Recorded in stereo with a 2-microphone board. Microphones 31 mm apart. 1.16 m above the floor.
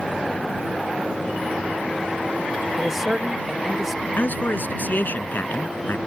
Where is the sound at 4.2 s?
65° left (ahead or behind).